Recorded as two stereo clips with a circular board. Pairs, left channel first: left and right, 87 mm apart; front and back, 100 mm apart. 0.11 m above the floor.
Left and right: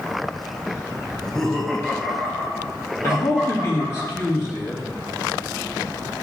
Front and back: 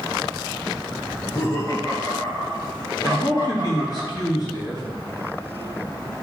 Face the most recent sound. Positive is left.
turn(degrees=40)